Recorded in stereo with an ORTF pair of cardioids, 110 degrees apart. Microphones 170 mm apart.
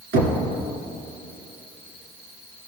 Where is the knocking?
70° right, 2 m.